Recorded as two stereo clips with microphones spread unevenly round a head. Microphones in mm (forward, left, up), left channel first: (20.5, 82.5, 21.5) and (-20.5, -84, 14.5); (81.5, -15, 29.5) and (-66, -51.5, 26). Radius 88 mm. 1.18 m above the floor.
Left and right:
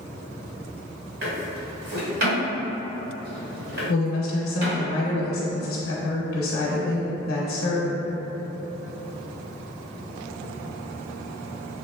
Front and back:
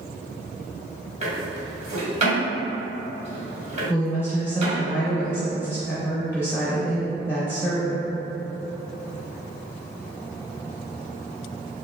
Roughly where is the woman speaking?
Left.